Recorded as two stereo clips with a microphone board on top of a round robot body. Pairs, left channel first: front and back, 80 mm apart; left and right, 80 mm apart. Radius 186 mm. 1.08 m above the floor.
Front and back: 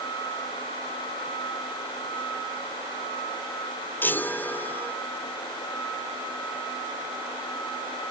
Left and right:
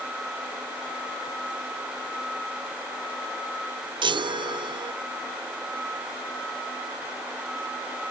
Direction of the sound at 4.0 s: 65° right.